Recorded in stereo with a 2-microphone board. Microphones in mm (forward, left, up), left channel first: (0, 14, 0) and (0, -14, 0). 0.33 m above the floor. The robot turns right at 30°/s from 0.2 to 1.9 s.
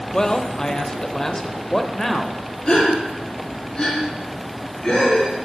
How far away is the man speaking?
About 0.9 m.